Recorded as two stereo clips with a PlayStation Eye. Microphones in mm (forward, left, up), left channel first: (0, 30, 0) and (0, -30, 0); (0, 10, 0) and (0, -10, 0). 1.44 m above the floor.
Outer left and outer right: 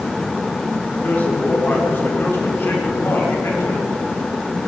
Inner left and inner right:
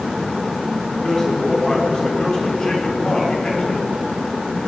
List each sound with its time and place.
1.0 s a man speaking: 30° left (ahead or behind), 5.5 m; by 3.9 s 45° left (ahead or behind), 5.5 m